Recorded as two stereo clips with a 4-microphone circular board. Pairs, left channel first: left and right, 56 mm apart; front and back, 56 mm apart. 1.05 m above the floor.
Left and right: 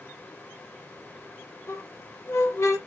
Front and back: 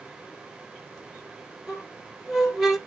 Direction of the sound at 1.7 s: 95° left.